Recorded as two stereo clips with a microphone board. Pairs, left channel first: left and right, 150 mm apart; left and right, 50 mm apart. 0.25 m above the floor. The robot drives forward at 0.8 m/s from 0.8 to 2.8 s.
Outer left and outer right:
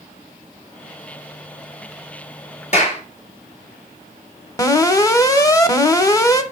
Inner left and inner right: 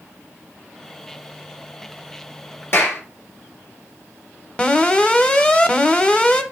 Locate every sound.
2.7 s a clap: 50° left (ahead or behind), 3 m
4.6 s an alarm: 25° left (ahead or behind), 0.8 m